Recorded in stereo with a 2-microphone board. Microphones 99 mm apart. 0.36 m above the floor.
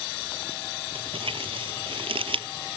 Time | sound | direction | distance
0.9 | crumpling | 70° right (ahead or behind) | ?